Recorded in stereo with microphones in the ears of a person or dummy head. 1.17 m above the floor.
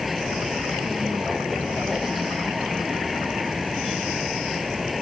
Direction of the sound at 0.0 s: Centre (ahead or behind).